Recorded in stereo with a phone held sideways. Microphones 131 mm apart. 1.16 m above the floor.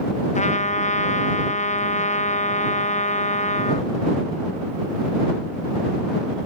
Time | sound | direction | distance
0.3 | a trumpet | 65° left (ahead or behind) | ?